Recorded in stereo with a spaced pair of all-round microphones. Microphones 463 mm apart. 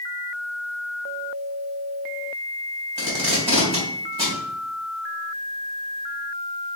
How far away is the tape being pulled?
About 2.0 m.